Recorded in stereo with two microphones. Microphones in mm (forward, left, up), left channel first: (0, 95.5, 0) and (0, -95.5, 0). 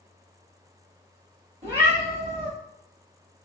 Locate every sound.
1.6 s a cat meowing: 35° right (ahead or behind), 1.0 m